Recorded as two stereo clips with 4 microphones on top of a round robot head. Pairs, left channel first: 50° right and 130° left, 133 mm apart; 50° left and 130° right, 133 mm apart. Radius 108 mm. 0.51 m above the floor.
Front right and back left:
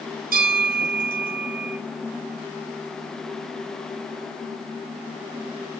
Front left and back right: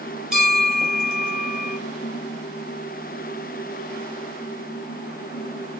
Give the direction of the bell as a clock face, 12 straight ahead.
7 o'clock.